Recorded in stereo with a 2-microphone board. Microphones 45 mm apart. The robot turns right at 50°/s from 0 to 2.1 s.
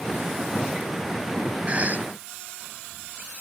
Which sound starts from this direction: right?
A cough, at 1.7 s.